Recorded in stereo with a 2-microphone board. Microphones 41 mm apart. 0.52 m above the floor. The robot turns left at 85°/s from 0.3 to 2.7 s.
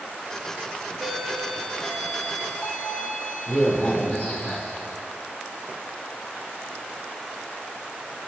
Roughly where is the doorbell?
Behind.